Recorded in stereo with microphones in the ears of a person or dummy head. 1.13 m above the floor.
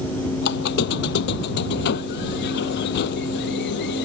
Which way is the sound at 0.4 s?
55° left (ahead or behind).